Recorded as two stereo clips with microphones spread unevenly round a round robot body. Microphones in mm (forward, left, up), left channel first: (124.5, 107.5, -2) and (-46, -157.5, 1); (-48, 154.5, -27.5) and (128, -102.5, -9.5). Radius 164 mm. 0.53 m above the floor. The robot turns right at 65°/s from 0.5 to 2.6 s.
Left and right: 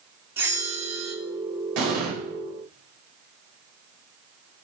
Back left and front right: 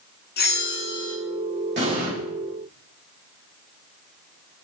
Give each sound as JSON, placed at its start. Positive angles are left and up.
{"t": 0.4, "sound": "a bell", "azimuth_deg": 155, "distance_m": 1.0}
{"t": 1.8, "sound": "an explosion", "azimuth_deg": -115, "distance_m": 2.5}